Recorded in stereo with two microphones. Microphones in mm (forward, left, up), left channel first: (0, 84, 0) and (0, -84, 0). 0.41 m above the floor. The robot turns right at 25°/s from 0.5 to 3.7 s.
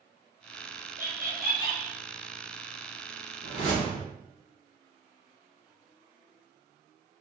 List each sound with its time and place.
1.0 s laughter: 55° right (ahead or behind), 1.5 m; by 2.0 s 45° right (ahead or behind), 1.5 m
3.4 s a whoosh: 35° left (ahead or behind), 1.3 m; by 4.1 s 45° left (ahead or behind), 1.3 m